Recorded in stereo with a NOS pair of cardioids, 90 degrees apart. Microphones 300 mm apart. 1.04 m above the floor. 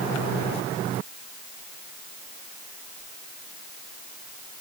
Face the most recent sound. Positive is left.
No sound to turn to.